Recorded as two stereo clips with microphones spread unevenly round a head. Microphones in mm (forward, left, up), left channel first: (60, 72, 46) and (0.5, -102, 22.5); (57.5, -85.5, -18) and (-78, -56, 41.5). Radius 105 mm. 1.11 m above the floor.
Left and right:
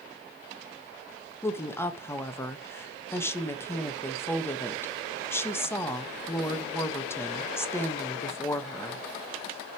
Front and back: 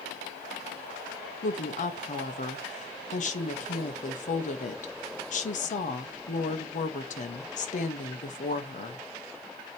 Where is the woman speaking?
10° right, 1.4 m.